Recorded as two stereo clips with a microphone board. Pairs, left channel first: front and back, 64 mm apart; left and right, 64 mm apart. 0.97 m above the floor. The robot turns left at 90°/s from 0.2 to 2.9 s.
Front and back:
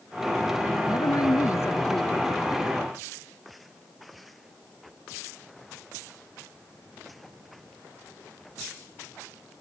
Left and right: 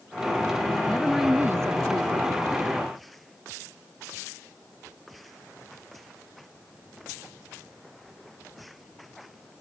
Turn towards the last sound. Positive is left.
turn(degrees=-160)